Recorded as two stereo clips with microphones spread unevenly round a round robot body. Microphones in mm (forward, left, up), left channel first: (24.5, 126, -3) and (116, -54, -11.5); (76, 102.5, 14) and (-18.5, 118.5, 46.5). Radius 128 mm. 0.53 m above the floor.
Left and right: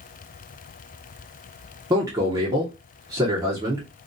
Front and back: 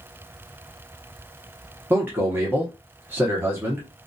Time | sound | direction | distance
1.9 | a man speaking | 105° right | 0.8 m